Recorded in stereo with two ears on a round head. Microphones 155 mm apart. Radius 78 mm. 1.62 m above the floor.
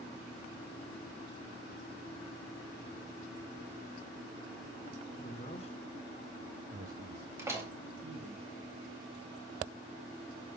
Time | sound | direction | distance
5.2 | a man speaking | 45° left (ahead or behind) | 1.6 m
7.4 | a door slam | 15° right (ahead or behind) | 2 m